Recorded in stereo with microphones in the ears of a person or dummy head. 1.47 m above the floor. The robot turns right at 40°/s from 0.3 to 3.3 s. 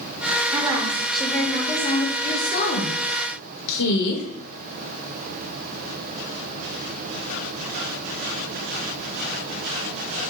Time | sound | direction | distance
0.5 | a woman speaking | 30° right | 0.9 m
2.2 | a woman speaking | 15° left | 1.2 m